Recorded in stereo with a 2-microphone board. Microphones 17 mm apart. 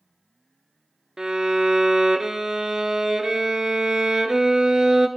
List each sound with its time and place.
1.2 s a violin: 40° right (ahead or behind), 0.6 m